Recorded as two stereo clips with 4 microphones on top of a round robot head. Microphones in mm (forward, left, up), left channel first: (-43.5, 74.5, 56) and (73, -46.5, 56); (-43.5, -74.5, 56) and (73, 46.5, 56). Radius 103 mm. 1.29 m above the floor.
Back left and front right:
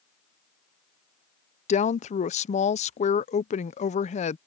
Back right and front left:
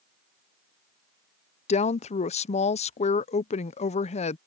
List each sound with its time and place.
1.7 s a woman speaking: straight behind